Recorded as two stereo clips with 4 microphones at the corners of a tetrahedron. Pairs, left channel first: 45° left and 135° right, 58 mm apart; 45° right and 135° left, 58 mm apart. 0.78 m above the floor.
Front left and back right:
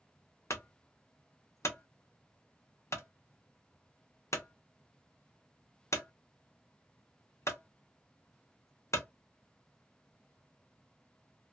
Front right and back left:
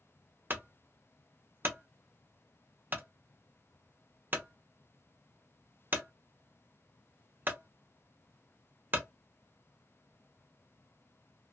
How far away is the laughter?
No laughter in this recording.